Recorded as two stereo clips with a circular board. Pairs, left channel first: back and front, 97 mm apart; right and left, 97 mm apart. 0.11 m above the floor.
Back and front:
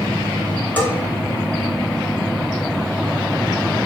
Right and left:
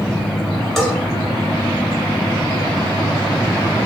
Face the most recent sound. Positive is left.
turn(degrees=-170)